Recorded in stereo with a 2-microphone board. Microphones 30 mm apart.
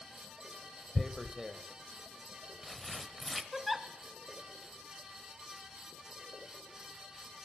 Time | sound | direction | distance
0.9 | tearing paper | centre (ahead or behind) | 0.7 m
3.5 | a giggle | 5° right (ahead or behind) | 0.8 m